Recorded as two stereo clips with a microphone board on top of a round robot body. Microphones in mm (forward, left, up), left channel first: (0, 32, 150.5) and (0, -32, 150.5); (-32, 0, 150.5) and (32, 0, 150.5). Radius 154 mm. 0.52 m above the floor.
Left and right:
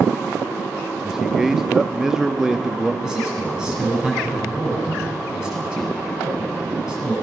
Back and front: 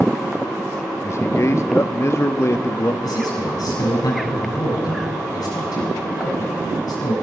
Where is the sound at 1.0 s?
170° right, 1.0 m.